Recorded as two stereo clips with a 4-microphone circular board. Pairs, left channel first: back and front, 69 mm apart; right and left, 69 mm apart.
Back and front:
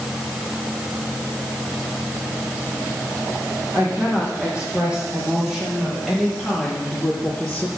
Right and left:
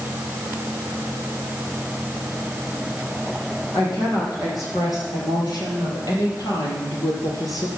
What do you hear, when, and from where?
3.7 s a woman speaking: 70° right, 7 m; by 7.7 s 110° right, 3.5 m